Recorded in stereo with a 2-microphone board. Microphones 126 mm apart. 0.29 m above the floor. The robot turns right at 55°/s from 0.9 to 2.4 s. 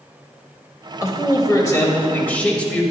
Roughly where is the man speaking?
Left.